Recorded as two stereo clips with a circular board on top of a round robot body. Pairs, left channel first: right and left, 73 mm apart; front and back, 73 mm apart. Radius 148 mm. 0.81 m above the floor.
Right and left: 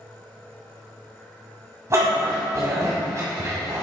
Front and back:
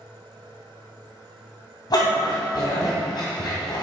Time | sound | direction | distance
1.9 | a dog barking | 35° left | 1.9 m